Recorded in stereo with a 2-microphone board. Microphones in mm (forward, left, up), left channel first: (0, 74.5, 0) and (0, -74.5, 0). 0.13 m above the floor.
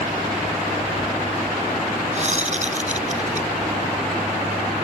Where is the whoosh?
50° right (ahead or behind).